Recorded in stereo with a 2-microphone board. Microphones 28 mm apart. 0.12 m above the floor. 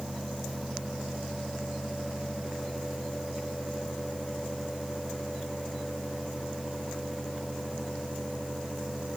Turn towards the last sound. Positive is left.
No sound to turn to.